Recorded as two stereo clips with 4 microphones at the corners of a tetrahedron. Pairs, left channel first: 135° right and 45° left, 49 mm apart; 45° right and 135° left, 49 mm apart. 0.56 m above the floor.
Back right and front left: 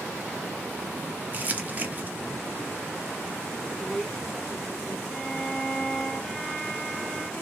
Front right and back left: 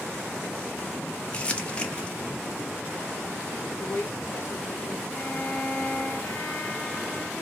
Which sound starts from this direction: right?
A violin, at 5.1 s.